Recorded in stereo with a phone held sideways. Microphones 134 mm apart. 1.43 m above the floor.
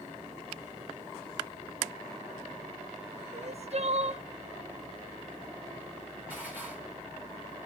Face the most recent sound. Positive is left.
turn(degrees=-10)  # may be behind; listen again after turning